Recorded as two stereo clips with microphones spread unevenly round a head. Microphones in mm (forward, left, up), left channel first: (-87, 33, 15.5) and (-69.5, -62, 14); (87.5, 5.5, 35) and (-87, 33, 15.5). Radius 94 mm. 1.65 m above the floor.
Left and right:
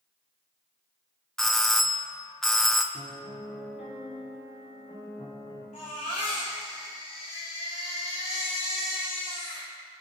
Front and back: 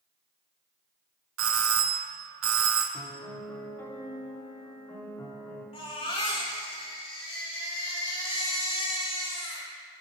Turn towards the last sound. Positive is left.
turn(degrees=50)